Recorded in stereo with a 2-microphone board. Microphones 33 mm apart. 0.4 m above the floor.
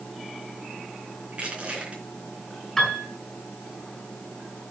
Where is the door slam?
No door slam in this recording.